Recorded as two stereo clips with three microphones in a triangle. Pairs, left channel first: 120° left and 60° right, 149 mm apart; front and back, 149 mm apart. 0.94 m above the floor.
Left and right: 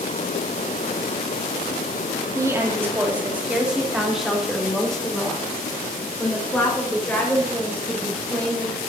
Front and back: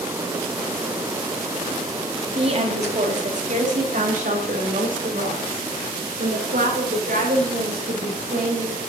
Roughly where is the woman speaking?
Behind right.